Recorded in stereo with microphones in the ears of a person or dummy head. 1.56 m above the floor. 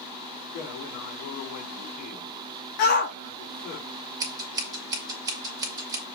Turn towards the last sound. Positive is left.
turn(degrees=-15)  # may be behind; listen again after turning